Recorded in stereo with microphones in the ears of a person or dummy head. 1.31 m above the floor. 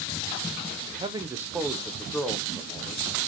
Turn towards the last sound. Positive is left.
turn(degrees=5)  # may be behind; listen again after turning